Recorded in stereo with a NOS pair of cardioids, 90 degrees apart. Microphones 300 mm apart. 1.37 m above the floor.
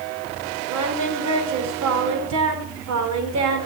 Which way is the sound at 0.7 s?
65° right.